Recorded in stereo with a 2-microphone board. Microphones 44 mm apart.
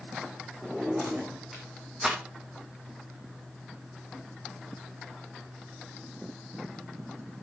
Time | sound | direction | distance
0.6 | a drawer | 5° right (ahead or behind) | 4 m
2.0 | a rattle | 10° right (ahead or behind) | 2 m